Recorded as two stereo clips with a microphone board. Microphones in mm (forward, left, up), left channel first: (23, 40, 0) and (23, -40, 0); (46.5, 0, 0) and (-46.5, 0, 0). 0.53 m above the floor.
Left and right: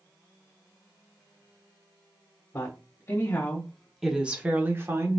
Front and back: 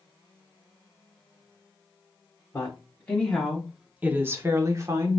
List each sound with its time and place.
2.5 s a woman speaking: 60° left, 1.0 m; by 5.2 s 135° right, 1.1 m